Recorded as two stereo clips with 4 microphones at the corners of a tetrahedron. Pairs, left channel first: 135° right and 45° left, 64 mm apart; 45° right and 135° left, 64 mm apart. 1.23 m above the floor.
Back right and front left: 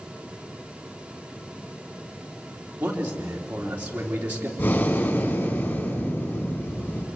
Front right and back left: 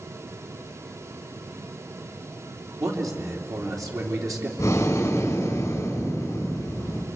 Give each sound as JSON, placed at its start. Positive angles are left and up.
{"t": 2.8, "sound": "a man speaking", "azimuth_deg": 110, "distance_m": 3.5}
{"t": 4.6, "sound": "breathing", "azimuth_deg": -85, "distance_m": 4.0}